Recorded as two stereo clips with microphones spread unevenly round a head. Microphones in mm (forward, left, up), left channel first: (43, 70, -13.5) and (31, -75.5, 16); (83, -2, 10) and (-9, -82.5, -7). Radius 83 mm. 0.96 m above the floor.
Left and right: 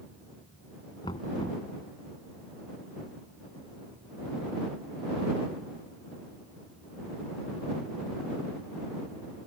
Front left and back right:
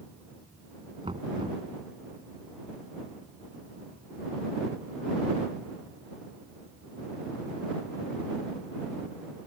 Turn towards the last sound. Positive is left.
turn(degrees=155)